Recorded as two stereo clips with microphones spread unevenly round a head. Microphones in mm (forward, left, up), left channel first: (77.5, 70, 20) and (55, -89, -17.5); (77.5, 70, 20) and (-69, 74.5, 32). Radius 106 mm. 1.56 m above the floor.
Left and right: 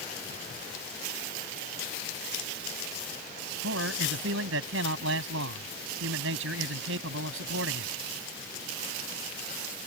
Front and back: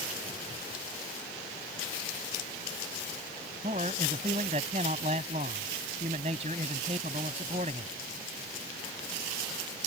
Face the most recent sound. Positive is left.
turn(degrees=-120)